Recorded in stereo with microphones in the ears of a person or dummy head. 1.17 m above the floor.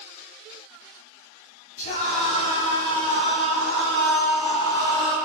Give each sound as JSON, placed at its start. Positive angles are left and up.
{"t": 1.8, "sound": "a scream", "side_deg": 45, "distance_m": 4.0}